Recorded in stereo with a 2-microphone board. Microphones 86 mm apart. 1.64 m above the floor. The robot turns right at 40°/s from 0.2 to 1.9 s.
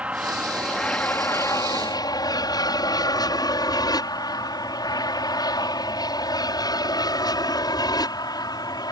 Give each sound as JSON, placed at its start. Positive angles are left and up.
{"t": 0.0, "sound": "an aircraft", "side_deg": -15}